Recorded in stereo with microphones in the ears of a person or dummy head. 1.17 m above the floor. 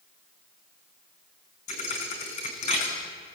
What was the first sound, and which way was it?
A thud, 35° left (ahead or behind).